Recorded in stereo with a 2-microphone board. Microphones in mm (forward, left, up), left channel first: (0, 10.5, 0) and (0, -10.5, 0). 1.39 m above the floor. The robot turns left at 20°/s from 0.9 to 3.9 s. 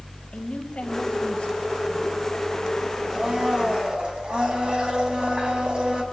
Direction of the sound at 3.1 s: 30° right (ahead or behind).